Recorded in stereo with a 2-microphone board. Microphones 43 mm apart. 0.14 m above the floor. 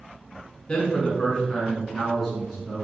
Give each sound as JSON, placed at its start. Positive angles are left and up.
{"t": 0.7, "sound": "a man speaking", "side_deg": 20, "distance_m": 1.2}